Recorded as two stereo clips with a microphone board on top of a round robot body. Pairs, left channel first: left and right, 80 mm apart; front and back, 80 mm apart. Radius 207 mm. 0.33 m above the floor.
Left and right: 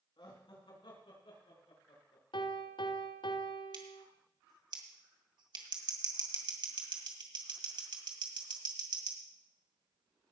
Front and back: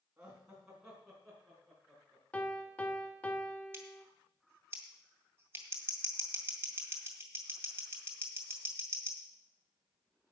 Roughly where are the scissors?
Behind right.